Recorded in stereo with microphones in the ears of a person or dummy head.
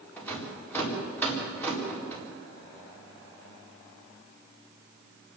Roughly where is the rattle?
Centre.